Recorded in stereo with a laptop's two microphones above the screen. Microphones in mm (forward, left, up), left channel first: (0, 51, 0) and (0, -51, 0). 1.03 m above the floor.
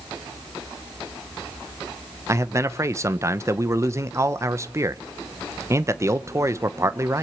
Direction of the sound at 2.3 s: 30° right (ahead or behind).